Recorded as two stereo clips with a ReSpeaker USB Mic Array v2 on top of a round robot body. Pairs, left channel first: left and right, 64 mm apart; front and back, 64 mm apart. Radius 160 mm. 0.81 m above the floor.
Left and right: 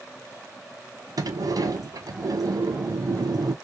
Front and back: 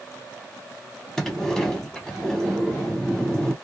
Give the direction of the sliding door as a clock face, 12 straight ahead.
3 o'clock.